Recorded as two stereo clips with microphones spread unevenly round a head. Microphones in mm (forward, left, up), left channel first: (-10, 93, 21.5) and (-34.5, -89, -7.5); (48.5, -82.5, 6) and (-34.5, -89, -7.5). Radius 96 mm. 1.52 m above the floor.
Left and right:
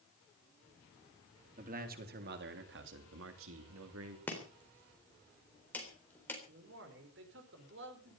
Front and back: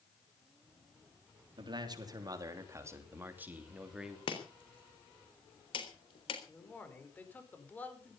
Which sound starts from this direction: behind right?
A man speaking, at 1.6 s.